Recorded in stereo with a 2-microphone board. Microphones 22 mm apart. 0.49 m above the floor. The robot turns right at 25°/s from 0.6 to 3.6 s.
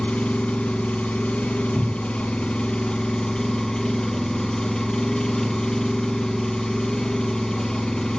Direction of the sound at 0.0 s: 75° left.